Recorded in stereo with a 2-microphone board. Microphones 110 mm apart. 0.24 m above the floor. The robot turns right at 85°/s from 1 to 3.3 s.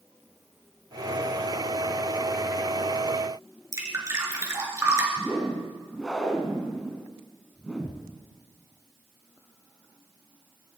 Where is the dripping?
25° right (ahead or behind), 3.5 m.